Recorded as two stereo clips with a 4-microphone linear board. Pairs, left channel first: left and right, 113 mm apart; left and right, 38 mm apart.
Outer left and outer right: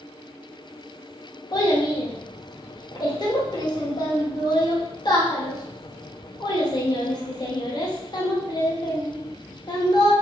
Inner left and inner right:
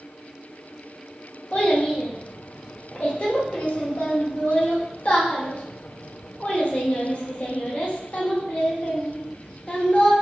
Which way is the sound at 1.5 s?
40° left (ahead or behind).